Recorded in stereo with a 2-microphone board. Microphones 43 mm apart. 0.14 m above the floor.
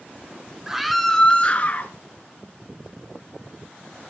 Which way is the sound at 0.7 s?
10° right (ahead or behind).